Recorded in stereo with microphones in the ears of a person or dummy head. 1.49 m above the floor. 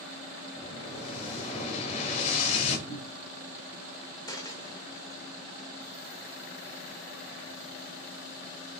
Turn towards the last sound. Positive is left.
turn(degrees=25)  # may be behind; listen again after turning